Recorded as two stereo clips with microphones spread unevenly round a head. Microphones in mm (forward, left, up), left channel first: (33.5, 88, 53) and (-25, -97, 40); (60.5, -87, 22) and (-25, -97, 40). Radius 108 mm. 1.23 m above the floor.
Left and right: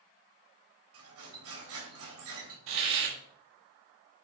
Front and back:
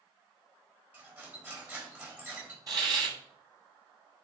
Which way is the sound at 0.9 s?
105° right.